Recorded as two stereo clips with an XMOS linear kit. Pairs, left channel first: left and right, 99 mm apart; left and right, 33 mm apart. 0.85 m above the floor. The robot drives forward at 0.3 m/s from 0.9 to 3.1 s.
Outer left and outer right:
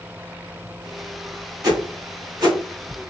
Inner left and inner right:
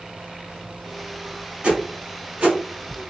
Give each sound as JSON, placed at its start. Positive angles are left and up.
{"t": 1.6, "sound": "a whoosh", "side_deg": -40, "distance_m": 1.3}